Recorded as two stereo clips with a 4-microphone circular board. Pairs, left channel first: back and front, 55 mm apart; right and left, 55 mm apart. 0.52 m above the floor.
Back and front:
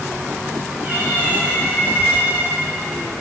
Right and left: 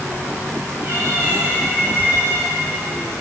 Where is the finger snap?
I don't hear a finger snap.